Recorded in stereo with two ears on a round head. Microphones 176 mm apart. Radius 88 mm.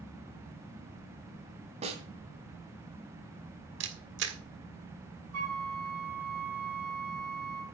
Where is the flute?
80° right, 4.5 m.